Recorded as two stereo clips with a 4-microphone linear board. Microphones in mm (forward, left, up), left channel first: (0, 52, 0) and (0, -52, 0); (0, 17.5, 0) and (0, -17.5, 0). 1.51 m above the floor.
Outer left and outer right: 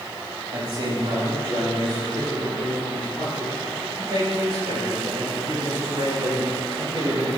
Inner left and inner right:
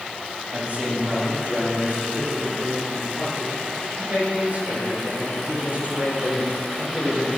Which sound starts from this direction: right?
A man speaking, at 0.5 s.